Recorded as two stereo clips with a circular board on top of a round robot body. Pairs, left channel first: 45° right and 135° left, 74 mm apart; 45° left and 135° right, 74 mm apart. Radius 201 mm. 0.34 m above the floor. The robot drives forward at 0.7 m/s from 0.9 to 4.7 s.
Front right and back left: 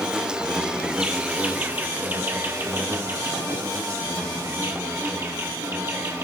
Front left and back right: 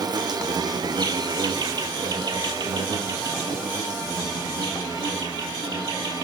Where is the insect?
145° right, 1.6 m; by 6.2 s 170° right, 4 m.